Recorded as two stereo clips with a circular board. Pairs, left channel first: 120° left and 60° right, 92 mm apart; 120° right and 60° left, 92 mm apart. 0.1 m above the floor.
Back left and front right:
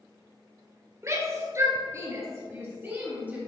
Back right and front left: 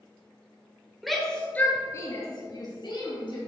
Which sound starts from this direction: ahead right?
A shout, at 1.0 s.